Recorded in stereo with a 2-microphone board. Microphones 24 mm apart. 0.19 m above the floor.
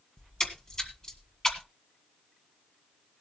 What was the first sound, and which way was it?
A splash, 30° left (ahead or behind).